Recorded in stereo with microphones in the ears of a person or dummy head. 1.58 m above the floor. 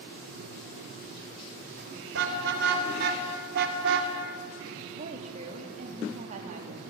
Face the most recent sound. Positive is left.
turn(degrees=-45)  # may be behind; listen again after turning